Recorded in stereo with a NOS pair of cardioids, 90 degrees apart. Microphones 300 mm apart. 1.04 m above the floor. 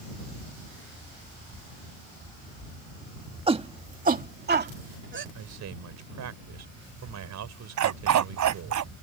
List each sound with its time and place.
3.5 s a shout: 15° right; by 5.2 s 40° right
5.3 s a man speaking: 60° right
7.8 s a dog barking: 65° right